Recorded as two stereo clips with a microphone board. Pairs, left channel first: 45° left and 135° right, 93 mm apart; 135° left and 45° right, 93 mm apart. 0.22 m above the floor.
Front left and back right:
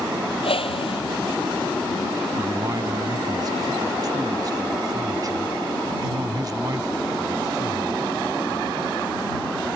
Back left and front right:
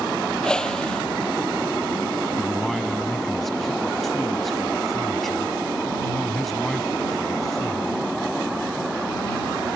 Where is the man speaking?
140° right.